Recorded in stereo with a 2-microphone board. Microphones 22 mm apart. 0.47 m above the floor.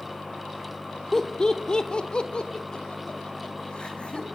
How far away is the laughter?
About 1.3 m.